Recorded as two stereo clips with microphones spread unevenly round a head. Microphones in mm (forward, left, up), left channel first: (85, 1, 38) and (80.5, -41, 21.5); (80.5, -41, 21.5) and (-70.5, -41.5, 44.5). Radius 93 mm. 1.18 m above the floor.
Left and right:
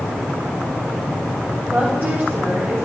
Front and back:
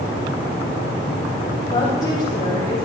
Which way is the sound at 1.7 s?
70° right.